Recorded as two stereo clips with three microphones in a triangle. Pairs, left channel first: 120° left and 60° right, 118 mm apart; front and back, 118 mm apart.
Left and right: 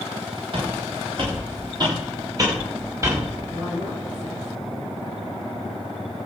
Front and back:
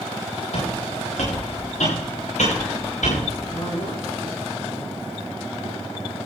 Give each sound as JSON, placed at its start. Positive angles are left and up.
{"t": 0.5, "sound": "footsteps", "azimuth_deg": -20, "distance_m": 8.5}
{"t": 3.5, "sound": "a woman speaking", "azimuth_deg": -30, "distance_m": 7.0}